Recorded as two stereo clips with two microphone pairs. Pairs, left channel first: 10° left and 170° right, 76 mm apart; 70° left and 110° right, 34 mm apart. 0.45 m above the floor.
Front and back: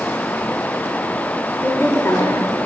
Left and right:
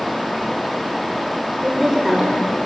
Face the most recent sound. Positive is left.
turn(degrees=-25)